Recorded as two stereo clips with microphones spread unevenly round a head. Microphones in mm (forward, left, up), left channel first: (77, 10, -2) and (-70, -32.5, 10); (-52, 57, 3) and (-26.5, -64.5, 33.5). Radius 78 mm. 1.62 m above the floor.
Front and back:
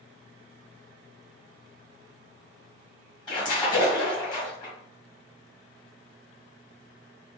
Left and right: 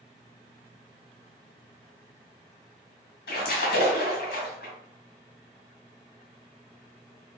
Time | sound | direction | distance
3.3 | a splash | 80° left | 1.2 m